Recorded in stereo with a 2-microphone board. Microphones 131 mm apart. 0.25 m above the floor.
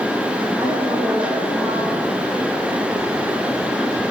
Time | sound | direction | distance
0.6 | a woman speaking | 20° right (ahead or behind) | 8 m